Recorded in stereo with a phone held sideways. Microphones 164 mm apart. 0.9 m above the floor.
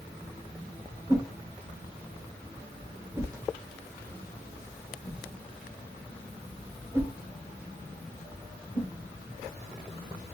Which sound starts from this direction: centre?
A whoosh, at 1.1 s.